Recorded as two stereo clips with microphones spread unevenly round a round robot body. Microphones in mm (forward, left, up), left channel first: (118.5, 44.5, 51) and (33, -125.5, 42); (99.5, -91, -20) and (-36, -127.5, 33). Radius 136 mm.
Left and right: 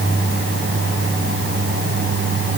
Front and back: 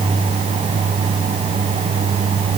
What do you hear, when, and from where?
Only background noise.